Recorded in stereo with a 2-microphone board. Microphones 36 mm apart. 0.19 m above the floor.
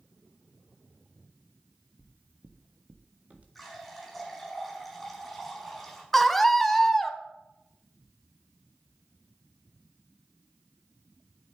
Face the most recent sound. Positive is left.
turn(degrees=5)  # may be behind; listen again after turning